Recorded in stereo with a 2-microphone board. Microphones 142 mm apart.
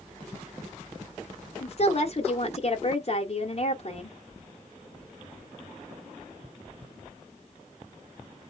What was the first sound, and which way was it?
A woman speaking, 50° left (ahead or behind).